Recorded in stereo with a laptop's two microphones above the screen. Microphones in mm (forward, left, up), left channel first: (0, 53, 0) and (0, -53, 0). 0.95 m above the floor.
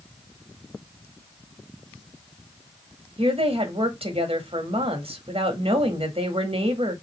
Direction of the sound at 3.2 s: 65° right (ahead or behind).